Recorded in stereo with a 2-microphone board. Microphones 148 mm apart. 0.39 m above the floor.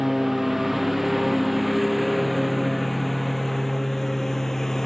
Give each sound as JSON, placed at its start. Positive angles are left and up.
{"t": 0.0, "sound": "a lawn mower", "side_deg": 0}